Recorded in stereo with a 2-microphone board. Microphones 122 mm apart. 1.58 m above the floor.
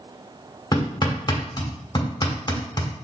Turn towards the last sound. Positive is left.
turn(degrees=35)  # may be behind; listen again after turning